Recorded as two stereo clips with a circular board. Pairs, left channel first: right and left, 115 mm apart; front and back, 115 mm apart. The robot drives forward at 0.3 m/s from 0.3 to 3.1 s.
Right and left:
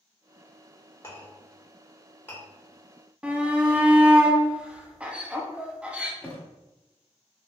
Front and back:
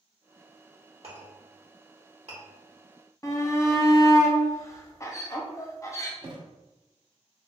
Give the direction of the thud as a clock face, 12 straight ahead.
5 o'clock.